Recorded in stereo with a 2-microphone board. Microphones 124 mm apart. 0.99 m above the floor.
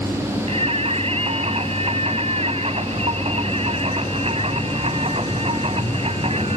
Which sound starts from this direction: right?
Singing, at 0.5 s.